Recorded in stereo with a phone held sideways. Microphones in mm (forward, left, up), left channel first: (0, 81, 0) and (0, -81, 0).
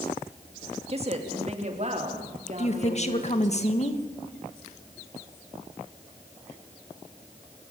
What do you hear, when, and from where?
0.9 s a woman speaking: 40° right (ahead or behind), 2.5 m; by 3.6 s 50° right (ahead or behind), 4.5 m
2.6 s a woman speaking: 45° left (ahead or behind), 1.7 m